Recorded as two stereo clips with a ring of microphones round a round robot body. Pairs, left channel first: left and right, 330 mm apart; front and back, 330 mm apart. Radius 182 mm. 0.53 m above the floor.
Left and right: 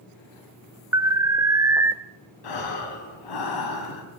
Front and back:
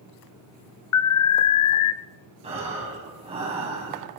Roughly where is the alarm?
Ahead.